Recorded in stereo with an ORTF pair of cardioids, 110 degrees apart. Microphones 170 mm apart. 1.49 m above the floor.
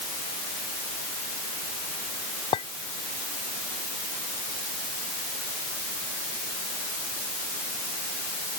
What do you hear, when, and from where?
2.5 s a clink: 40° left